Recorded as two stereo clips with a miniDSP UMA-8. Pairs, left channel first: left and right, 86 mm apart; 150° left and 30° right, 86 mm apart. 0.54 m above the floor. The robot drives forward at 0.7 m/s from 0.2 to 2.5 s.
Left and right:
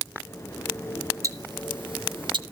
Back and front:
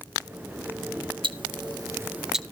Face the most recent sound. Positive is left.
turn(degrees=-125)